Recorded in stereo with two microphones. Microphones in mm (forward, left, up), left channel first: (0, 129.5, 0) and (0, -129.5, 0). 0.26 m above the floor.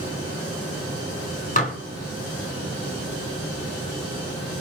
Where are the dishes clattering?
30° left (ahead or behind), 1.7 m.